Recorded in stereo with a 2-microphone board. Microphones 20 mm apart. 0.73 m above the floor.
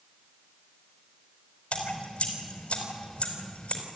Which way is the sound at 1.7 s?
60° left (ahead or behind).